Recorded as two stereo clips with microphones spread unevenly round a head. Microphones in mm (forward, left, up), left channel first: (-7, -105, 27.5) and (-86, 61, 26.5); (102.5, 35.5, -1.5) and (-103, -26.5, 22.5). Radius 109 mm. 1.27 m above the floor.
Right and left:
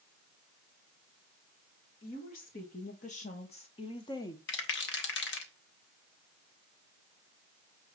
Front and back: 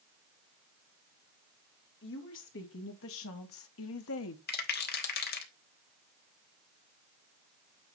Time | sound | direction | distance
2.0 | a woman speaking | 15° right | 2.5 m
4.5 | a rattle | 30° right | 1.2 m